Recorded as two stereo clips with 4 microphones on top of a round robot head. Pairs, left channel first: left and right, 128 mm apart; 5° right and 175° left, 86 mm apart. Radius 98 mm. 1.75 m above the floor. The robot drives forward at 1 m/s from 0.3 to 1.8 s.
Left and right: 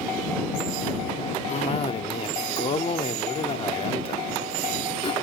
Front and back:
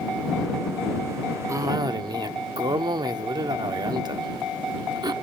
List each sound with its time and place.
1.5 s a cough: 120° left, 0.7 m; by 5.1 s 140° left, 0.9 m